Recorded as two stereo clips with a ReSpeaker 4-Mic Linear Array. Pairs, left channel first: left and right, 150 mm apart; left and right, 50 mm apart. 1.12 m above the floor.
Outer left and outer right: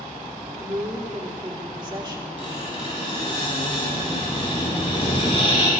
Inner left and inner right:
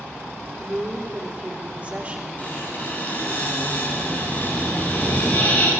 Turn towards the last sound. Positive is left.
turn(degrees=35)  # may be behind; listen again after turning